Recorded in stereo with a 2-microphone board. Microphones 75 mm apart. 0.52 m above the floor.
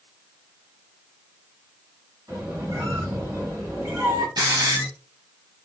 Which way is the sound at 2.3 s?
45° right (ahead or behind).